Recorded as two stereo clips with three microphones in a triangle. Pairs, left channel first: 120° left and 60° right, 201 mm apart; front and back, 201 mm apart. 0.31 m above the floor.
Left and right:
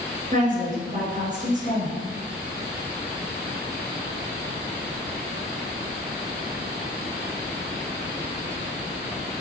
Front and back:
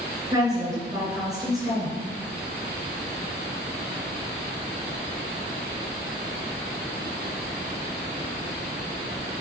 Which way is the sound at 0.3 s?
110° right.